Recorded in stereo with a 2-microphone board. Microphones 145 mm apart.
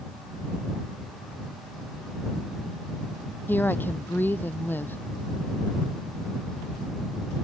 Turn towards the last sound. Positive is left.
turn(degrees=15)  # may be behind; listen again after turning